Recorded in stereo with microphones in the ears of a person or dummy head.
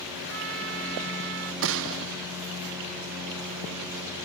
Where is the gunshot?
70° right (ahead or behind).